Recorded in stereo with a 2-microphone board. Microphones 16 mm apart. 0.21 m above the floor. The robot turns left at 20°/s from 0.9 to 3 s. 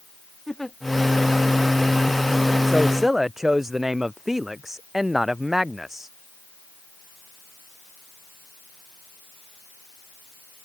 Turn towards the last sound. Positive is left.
turn(degrees=-15)  # may be behind; listen again after turning